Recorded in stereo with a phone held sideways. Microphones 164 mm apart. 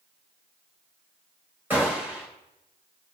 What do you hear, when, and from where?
1.7 s a gunshot: 10° right (ahead or behind), 2 m